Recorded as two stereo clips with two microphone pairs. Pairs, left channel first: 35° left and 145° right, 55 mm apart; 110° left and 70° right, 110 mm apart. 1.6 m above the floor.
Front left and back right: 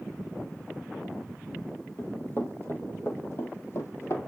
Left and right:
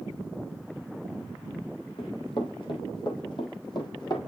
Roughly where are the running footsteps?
Left.